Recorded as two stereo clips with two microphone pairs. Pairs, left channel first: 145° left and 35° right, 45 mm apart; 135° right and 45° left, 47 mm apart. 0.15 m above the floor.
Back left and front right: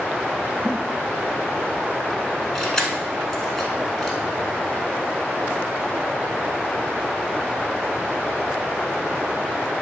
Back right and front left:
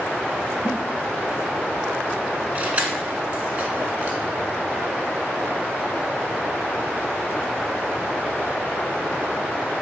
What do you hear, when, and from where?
0.7 s a giggle: 135° right, 2 m
2.5 s keys jangling: 70° left, 1.0 m